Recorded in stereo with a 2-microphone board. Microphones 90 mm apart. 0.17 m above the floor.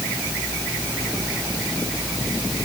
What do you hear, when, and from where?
Only background noise.